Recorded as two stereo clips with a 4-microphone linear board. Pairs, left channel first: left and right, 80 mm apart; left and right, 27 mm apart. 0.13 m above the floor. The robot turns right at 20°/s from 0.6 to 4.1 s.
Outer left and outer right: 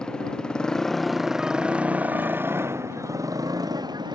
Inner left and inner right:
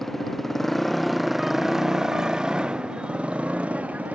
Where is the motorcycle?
170° left; by 4.2 s 120° right.